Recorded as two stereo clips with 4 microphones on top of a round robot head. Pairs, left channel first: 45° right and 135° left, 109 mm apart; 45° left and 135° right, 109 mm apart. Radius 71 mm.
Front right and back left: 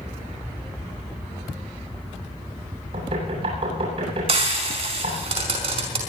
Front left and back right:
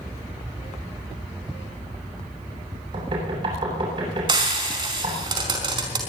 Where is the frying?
175° left, 5 m.